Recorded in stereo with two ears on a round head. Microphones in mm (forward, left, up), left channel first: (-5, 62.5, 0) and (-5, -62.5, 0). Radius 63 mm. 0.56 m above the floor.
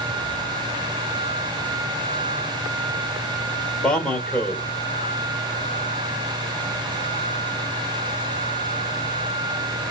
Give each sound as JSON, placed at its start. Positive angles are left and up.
{"t": 3.8, "sound": "a man speaking", "side_deg": 5, "distance_m": 1.5}